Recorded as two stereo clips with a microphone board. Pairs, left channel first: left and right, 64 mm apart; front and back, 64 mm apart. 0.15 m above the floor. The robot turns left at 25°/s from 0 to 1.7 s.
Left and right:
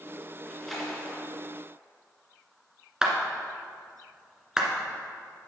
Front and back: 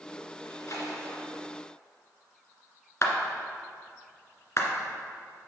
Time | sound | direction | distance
0.4 | a splash | 10° left | 2.5 m
3.0 | a clap | 10° right | 1.7 m